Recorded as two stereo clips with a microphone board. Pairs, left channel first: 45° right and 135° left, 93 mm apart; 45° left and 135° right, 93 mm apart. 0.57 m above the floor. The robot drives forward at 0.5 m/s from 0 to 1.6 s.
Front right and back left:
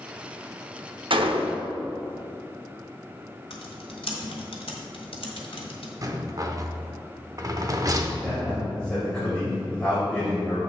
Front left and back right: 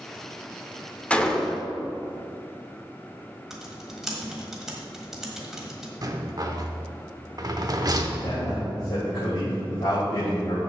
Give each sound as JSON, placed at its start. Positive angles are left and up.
{"t": 1.1, "sound": "a gunshot", "azimuth_deg": 120, "distance_m": 0.7}
{"t": 3.5, "sound": "typing on a keyboard", "azimuth_deg": -50, "distance_m": 1.4}
{"t": 6.0, "sound": "a rattle", "azimuth_deg": 180, "distance_m": 0.7}
{"t": 8.2, "sound": "a man speaking", "azimuth_deg": 35, "distance_m": 3.0}